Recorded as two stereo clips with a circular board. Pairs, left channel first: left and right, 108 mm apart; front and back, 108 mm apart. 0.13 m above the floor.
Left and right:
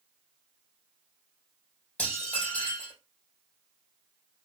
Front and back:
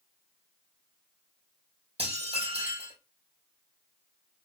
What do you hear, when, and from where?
2.0 s dishes clattering: 170° left, 3 m